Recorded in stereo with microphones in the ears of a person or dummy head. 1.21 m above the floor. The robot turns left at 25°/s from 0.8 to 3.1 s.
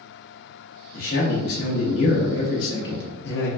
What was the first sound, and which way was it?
A man speaking, 125° left.